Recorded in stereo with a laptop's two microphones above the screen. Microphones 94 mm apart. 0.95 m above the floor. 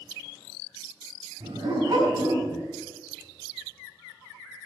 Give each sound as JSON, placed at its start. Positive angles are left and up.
{"t": 1.4, "sound": "a dog barking", "side_deg": -55, "distance_m": 4.5}